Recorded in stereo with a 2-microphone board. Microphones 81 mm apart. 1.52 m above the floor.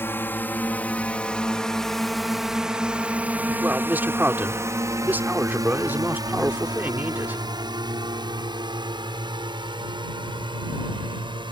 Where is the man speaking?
25° right (ahead or behind).